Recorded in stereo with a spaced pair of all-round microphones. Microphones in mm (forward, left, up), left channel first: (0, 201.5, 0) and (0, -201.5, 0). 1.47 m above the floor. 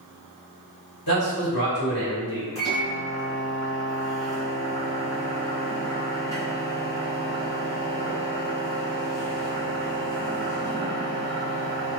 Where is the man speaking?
60° left (ahead or behind), 1.6 m.